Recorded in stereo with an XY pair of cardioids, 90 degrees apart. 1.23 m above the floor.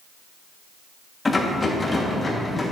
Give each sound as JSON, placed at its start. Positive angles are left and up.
{"t": 1.2, "sound": "a rattle", "azimuth_deg": 25, "distance_m": 1.4}